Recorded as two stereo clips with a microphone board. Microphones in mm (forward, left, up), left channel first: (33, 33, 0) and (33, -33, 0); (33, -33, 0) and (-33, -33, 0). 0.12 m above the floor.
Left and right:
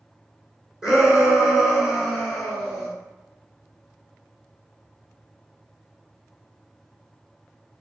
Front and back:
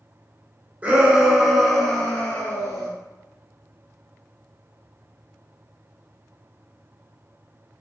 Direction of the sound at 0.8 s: 155° right.